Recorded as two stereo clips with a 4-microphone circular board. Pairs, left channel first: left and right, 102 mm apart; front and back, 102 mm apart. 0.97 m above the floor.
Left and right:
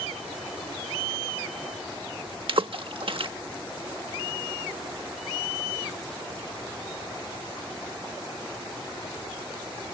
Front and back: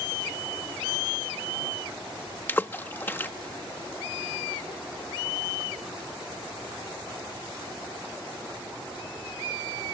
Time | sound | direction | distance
2.5 | a splash | 65° right | ?